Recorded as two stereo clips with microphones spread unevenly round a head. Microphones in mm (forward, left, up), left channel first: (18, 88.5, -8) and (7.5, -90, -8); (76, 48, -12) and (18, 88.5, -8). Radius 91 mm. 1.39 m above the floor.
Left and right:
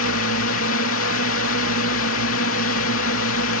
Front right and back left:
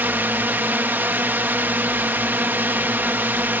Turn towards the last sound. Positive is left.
turn(degrees=85)